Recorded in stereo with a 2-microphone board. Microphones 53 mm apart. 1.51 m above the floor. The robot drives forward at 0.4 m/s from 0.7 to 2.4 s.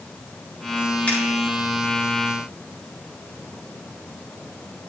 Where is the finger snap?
25° left (ahead or behind), 4.5 m.